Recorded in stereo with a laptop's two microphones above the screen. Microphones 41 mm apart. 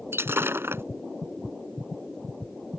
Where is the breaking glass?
65° right (ahead or behind).